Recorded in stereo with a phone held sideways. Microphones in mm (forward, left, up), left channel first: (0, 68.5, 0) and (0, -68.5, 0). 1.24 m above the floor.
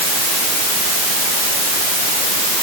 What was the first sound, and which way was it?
Only background noise.